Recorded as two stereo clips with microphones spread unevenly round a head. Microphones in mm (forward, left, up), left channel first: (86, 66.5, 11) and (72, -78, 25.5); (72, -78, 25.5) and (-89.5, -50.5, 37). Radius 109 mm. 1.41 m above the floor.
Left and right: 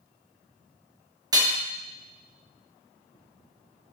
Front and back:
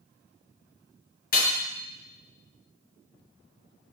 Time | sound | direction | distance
1.3 | hammering | 40° right | 1.3 m